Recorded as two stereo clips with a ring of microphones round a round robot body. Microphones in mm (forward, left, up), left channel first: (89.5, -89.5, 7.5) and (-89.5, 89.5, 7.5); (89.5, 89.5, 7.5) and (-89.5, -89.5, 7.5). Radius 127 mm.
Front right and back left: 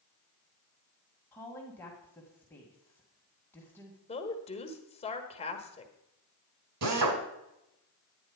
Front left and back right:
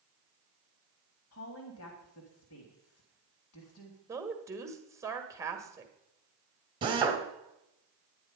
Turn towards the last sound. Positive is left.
turn(degrees=155)